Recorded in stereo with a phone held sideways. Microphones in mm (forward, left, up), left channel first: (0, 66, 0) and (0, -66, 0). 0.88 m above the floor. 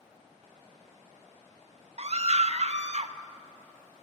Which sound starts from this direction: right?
A scream, at 2.0 s.